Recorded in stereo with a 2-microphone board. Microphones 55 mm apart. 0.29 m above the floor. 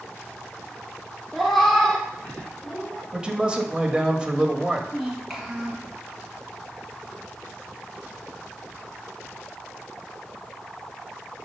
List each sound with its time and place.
1.3 s a cat meowing: centre (ahead or behind), 1.3 m; by 3.0 s 30° left (ahead or behind), 2.0 m
3.1 s a man speaking: 15° right (ahead or behind), 1.0 m
4.9 s a child speaking: centre (ahead or behind), 3.5 m